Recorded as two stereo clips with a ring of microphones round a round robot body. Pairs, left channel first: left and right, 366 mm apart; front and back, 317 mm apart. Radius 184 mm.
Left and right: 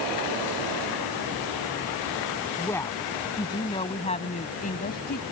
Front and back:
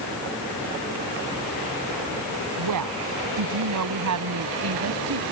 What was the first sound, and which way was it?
A woman speaking, 175° left.